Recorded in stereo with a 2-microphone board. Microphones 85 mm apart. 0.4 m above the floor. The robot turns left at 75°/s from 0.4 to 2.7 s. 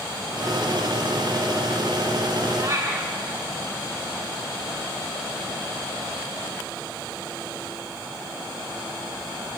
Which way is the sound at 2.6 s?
45° right (ahead or behind).